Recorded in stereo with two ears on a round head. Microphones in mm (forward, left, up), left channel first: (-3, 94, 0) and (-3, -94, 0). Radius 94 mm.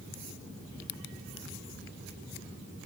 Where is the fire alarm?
No fire alarm in this recording.